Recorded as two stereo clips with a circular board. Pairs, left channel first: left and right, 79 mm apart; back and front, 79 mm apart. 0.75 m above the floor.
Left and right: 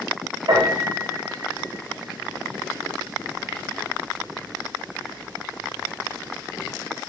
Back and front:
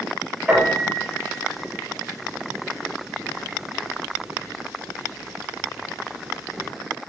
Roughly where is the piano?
Right.